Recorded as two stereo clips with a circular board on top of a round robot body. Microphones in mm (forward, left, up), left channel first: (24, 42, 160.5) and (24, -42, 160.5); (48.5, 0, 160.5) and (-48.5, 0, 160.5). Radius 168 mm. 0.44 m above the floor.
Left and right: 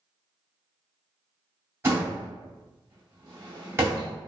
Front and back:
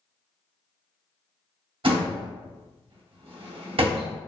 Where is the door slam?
150° right, 1.8 m.